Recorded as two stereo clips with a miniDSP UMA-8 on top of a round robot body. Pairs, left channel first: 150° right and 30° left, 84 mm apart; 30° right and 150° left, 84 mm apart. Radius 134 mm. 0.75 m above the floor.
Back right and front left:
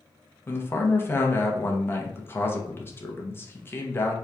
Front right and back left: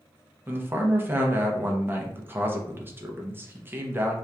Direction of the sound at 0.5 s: 175° right.